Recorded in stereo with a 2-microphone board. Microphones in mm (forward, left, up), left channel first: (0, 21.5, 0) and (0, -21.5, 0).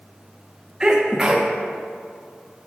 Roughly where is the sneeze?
Centre.